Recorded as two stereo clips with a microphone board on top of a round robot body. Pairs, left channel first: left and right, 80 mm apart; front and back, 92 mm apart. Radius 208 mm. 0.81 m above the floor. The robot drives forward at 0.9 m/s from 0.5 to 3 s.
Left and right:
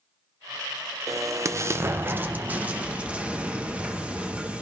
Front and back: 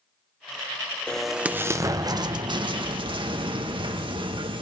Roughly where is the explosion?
Right.